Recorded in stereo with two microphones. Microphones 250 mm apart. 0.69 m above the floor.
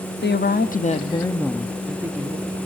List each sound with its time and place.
0.2 s a woman speaking: 45° left (ahead or behind), 0.7 m; by 2.6 s 15° right (ahead or behind), 1.0 m